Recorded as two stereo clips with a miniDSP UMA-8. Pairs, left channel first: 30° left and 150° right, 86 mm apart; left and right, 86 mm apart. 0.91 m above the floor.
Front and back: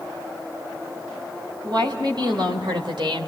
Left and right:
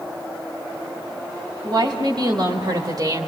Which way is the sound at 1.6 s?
120° right.